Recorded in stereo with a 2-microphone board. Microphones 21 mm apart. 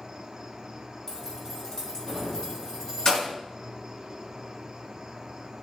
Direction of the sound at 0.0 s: 20° right (ahead or behind).